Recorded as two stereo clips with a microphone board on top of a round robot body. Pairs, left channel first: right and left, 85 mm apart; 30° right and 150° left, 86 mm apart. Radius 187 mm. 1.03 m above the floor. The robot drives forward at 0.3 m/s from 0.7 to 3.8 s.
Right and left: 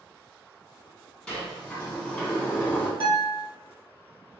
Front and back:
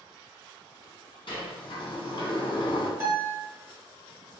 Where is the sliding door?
10° right, 1.2 m; by 2.9 s 15° right, 0.8 m.